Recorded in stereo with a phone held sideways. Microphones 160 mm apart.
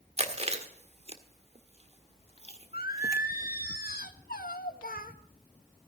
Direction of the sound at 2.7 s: 70° left (ahead or behind).